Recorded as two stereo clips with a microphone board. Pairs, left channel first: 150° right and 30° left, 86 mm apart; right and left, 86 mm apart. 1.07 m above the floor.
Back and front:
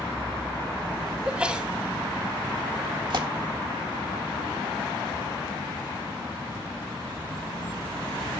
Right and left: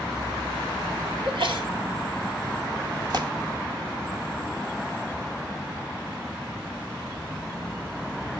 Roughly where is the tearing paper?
Ahead left.